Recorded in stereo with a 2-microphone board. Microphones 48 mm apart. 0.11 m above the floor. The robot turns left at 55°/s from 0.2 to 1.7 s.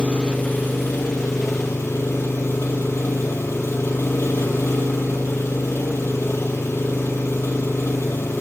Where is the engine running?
155° left, 3 m; by 8.4 s 75° left, 3 m.